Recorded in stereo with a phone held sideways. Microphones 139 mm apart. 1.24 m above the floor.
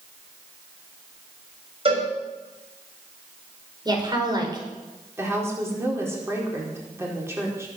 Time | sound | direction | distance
1.9 | a cowbell | 45° right (ahead or behind) | 6.5 m
3.9 | a woman speaking | 30° right (ahead or behind) | 4.5 m
5.2 | a woman speaking | 20° right (ahead or behind) | 4.5 m